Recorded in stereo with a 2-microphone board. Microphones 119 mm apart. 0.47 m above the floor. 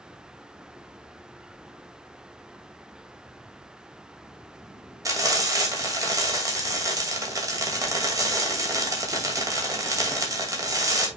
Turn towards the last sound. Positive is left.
turn(degrees=-30)  # may be behind; listen again after turning